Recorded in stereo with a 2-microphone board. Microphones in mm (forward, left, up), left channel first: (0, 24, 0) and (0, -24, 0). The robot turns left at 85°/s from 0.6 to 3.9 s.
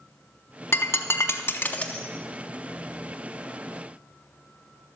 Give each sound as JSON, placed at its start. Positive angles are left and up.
{"t": 0.7, "sound": "breaking glass", "side_deg": 60, "distance_m": 0.7}